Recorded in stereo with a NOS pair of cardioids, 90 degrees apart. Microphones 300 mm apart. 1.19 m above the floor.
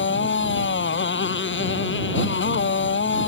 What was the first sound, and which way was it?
A motorcycle, 35° left.